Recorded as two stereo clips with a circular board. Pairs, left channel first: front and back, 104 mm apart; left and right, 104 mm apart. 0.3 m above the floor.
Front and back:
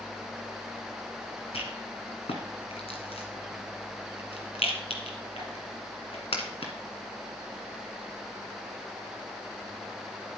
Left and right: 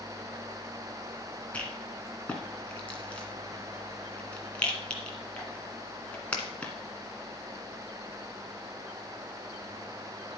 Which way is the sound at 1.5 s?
15° left.